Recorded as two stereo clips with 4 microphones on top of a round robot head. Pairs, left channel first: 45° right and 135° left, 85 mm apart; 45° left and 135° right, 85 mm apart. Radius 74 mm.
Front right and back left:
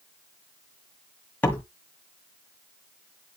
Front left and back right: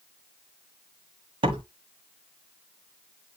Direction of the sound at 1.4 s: 115° right.